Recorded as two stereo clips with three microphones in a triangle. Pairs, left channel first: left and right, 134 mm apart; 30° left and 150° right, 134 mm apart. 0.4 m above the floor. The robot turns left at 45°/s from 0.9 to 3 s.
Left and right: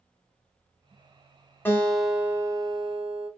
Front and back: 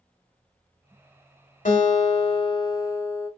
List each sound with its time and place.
1.6 s a guitar: 15° left, 0.9 m; by 3.3 s 45° right, 0.9 m